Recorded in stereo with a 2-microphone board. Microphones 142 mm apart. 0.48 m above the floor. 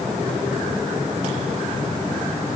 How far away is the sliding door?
No sliding door in this recording.